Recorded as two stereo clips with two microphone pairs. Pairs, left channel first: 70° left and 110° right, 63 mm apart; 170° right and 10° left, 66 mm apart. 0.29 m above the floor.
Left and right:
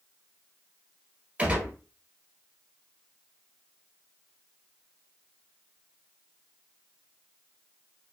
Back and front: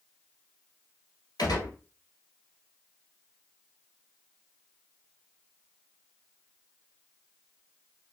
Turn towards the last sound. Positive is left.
turn(degrees=-175)